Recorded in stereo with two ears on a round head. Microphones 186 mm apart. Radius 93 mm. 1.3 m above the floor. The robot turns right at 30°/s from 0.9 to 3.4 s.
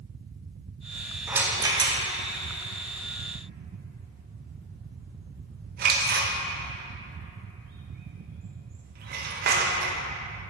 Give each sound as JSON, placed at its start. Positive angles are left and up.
{"t": 1.3, "sound": "a rattle", "side_deg": -10, "distance_m": 0.6}